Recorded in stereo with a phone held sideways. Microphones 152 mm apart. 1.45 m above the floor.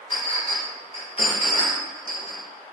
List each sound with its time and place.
0.1 s a clink: 35° left (ahead or behind), 0.8 m